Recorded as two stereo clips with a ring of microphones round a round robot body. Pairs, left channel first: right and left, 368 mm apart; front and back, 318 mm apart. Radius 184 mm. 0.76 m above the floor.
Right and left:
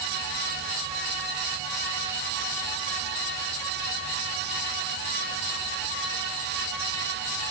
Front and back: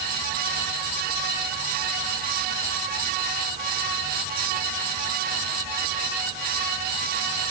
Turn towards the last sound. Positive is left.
No sound to turn to.